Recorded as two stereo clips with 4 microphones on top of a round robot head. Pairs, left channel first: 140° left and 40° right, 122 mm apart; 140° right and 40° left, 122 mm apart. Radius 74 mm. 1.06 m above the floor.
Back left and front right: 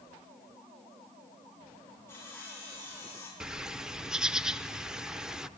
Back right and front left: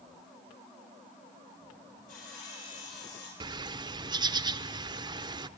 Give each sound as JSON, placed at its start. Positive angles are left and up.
{"t": 2.1, "sound": "sawing", "azimuth_deg": -150, "distance_m": 6.5}
{"t": 3.4, "sound": "a bird", "azimuth_deg": 40, "distance_m": 0.6}